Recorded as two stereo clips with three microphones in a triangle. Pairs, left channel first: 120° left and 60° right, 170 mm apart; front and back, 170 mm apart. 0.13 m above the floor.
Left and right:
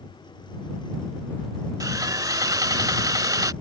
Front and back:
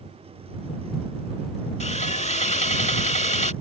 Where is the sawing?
Straight ahead.